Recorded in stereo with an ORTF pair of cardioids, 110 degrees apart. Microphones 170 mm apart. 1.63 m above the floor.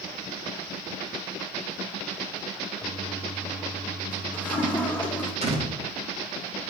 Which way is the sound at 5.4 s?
40° right.